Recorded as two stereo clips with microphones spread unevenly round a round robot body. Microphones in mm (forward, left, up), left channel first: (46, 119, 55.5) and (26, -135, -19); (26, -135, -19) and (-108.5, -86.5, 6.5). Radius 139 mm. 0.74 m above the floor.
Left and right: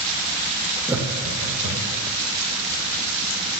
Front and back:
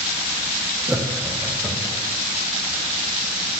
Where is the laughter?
125° right, 0.6 m; by 2.0 s 100° right, 1.6 m.